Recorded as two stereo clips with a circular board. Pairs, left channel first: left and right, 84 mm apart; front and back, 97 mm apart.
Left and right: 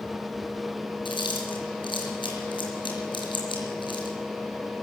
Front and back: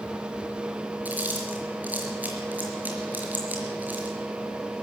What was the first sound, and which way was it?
Chewing, 105° left.